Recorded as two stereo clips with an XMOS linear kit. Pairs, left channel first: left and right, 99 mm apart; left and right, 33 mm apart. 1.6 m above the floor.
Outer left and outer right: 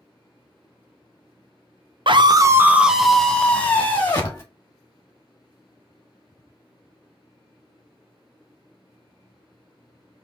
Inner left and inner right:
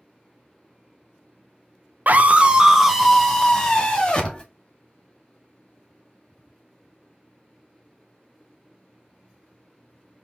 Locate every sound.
2.1 s a scream: 60° right (ahead or behind), 0.7 m; by 4.4 s 25° left (ahead or behind), 1.9 m